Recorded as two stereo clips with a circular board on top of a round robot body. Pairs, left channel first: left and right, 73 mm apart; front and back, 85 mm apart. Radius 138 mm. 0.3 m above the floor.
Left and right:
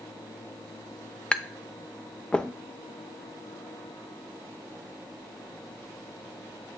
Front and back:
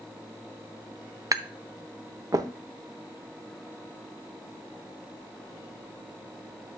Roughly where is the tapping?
Behind.